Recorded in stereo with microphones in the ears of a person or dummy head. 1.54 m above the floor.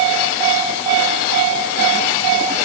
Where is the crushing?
No crushing in this recording.